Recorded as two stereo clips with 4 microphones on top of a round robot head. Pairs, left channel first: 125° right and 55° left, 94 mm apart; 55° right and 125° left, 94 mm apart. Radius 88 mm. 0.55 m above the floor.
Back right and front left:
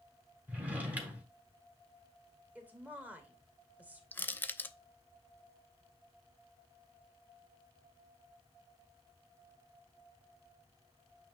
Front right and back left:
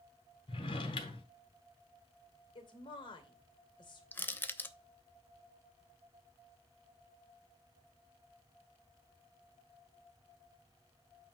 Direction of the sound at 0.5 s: 20° right.